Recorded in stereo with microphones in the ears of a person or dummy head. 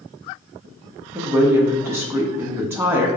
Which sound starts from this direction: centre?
A woman speaking, at 1.1 s.